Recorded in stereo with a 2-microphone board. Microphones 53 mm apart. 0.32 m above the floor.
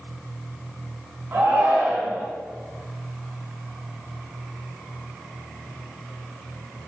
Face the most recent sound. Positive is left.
turn(degrees=-35)  # may be behind; listen again after turning